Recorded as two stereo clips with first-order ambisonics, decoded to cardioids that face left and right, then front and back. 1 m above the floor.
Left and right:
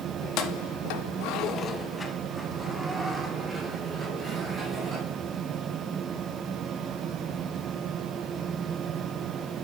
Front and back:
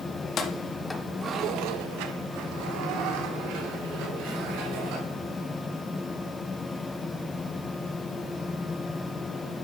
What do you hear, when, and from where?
0.2 s keys jangling: 55° left, 1.1 m; by 5.6 s 165° right, 4 m